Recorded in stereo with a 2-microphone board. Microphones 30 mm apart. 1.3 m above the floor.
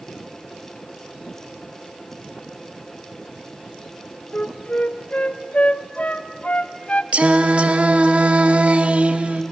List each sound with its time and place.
4.3 s a flute: 45° left (ahead or behind), 0.6 m
7.1 s singing: 50° right (ahead or behind), 0.8 m